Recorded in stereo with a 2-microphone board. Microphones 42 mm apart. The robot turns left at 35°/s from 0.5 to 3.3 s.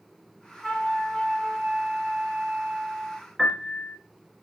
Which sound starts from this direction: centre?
A piano, at 3.4 s.